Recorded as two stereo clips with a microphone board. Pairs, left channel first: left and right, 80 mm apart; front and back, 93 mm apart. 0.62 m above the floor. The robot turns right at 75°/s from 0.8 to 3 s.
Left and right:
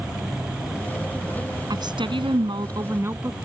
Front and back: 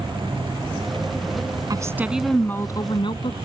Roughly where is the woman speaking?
Behind right.